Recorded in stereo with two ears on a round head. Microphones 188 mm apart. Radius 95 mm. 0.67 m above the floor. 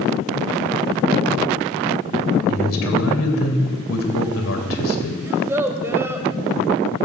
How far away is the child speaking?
About 1.8 m.